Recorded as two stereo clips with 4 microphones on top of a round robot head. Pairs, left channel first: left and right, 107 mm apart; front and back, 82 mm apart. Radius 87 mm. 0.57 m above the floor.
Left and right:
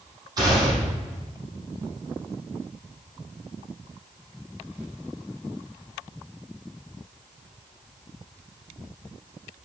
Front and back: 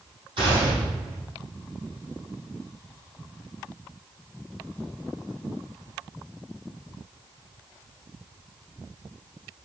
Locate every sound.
0.4 s a gunshot: 140° right, 4.5 m